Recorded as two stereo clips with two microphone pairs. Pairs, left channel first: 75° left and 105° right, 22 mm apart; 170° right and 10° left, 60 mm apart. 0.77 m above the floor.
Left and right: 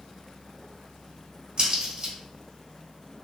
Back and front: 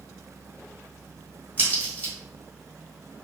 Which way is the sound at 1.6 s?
125° right.